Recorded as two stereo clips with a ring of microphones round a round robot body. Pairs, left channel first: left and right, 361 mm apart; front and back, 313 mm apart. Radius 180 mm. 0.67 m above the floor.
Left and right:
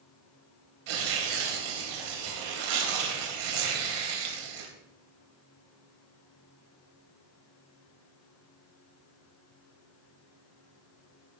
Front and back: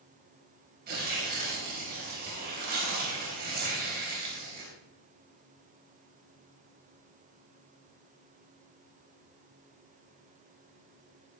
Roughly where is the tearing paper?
Right.